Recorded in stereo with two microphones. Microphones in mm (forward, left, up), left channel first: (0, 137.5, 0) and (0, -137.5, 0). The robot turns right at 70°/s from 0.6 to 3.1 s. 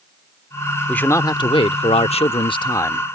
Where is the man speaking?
5° left (ahead or behind).